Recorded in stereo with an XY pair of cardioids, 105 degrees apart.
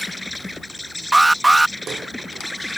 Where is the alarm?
15° right.